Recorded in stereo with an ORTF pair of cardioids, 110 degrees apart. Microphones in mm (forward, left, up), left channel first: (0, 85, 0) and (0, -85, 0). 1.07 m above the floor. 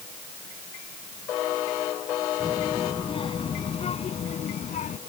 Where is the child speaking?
30° left; by 5.0 s 50° left.